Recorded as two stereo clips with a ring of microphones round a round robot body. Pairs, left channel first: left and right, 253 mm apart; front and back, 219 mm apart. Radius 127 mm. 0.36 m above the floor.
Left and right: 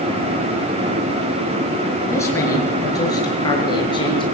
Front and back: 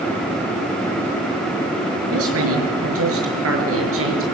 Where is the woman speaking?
170° left, 6.5 m; by 4.2 s 160° left, 7 m.